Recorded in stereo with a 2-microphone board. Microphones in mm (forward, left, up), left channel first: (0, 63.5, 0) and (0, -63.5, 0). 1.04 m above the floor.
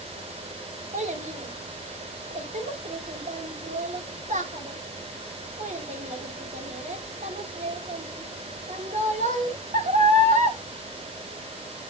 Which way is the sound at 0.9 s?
75° right (ahead or behind).